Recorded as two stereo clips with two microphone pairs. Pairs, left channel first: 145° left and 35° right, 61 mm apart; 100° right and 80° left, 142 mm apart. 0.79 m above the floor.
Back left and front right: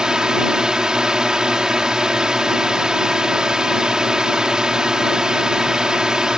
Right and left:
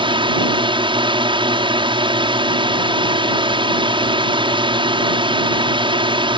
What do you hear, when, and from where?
0.0 s a drone: 40° left